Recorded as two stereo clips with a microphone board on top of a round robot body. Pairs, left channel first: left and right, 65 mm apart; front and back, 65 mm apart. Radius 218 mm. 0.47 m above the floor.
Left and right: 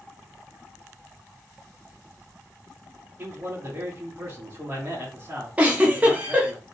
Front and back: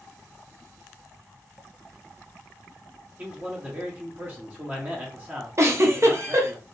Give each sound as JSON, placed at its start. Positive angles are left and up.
{"t": 3.2, "sound": "a man speaking", "azimuth_deg": -130, "distance_m": 1.7}
{"t": 5.6, "sound": "a giggle", "azimuth_deg": -150, "distance_m": 1.5}